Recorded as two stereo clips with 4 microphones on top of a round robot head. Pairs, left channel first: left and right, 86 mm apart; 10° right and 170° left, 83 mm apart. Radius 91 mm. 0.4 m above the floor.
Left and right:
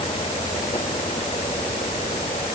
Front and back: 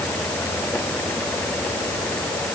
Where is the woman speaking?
No woman speaking in this recording.